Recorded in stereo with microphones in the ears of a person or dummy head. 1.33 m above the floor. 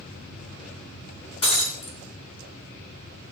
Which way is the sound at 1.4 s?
30° left (ahead or behind).